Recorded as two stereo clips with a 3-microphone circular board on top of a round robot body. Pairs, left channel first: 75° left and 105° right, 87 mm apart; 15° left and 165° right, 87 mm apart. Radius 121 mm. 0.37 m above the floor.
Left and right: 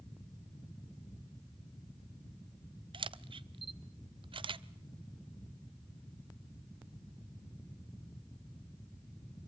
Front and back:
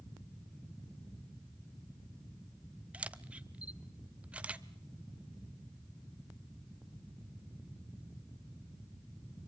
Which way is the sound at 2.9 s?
90° right.